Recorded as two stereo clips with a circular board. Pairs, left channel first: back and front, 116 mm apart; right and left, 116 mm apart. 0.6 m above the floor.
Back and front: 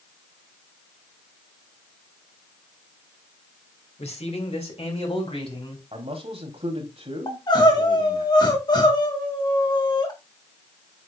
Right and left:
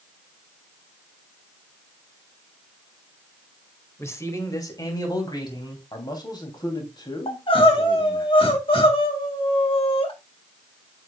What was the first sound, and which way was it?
A man speaking, 155° right.